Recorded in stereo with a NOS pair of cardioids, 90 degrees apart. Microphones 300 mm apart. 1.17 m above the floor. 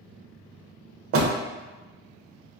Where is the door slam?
50° right, 0.6 m.